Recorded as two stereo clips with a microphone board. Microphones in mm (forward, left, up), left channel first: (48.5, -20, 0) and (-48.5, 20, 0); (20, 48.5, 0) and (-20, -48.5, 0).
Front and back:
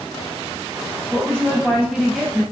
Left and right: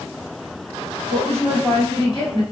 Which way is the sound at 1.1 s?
80° left.